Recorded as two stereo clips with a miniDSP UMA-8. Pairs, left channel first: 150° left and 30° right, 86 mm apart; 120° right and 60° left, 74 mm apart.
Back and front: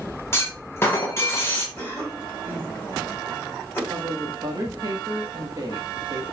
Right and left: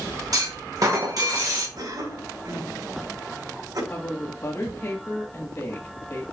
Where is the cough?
85° left, 3.5 m.